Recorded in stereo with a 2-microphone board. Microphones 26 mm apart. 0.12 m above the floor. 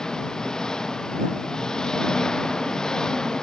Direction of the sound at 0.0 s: 25° left (ahead or behind).